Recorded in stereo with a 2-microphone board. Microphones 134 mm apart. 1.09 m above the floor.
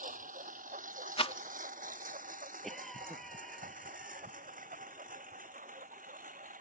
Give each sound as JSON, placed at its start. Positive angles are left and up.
{"t": 0.0, "sound": "a lawn mower", "side_deg": -80}
{"t": 1.2, "sound": "a rattle", "side_deg": 40}
{"t": 2.6, "sound": "a cough", "side_deg": 0}